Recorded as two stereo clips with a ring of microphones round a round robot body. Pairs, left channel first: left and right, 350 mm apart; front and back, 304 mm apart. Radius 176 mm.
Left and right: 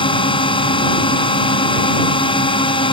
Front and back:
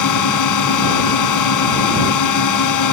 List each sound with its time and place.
0.0 s a drone: 15° left